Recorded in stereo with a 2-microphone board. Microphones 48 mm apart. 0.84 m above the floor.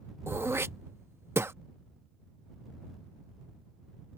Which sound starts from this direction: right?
Throat clearing, at 0.3 s.